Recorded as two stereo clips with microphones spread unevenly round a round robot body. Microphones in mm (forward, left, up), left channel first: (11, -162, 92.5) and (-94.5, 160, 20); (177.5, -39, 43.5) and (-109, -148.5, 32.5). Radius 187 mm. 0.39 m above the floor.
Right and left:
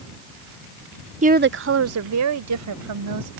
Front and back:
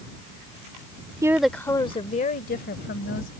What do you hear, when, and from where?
1.2 s a woman speaking: 130° left; by 3.3 s 80° left